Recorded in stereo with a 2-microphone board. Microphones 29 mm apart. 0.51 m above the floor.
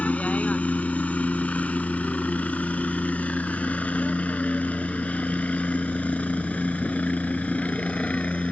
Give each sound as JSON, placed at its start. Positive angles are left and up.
{"t": 0.0, "sound": "a helicopter", "side_deg": 50}